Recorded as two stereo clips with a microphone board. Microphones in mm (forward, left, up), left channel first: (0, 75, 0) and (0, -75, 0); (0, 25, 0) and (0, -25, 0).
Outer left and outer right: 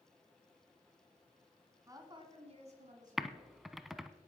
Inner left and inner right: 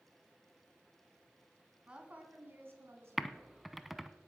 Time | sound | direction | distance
1.9 | a woman speaking | 20° right (ahead or behind) | 2 m
3.2 | typing on a keyboard | centre (ahead or behind) | 0.7 m